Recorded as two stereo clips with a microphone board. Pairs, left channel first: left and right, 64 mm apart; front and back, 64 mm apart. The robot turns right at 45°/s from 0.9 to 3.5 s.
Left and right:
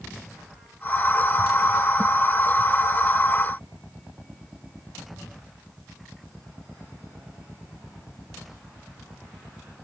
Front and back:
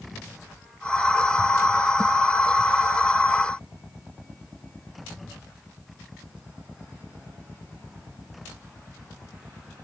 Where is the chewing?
No chewing in this recording.